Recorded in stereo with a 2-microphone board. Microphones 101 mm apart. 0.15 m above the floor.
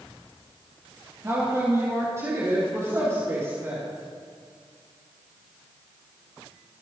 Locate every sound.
1.2 s a woman speaking: 30° right (ahead or behind), 3.5 m; by 3.8 s 25° right (ahead or behind), 6 m